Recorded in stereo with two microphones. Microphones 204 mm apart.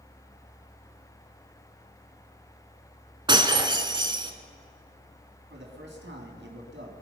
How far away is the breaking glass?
About 1.2 m.